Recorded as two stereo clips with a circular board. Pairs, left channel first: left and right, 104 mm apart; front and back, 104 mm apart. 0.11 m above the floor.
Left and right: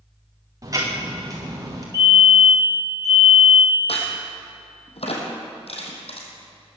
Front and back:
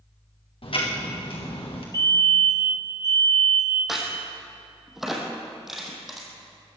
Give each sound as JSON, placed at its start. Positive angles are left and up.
{"t": 0.6, "sound": "ticking", "azimuth_deg": -35, "distance_m": 3.5}
{"t": 1.9, "sound": "a fire alarm", "azimuth_deg": -45, "distance_m": 3.5}
{"t": 3.9, "sound": "a crack", "azimuth_deg": 90, "distance_m": 3.0}